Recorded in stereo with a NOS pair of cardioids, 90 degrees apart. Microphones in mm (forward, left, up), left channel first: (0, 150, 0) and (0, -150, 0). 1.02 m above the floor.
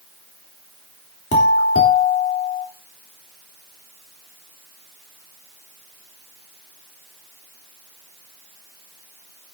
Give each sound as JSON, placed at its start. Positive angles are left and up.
{"t": 1.3, "sound": "a doorbell", "azimuth_deg": 50, "distance_m": 3.5}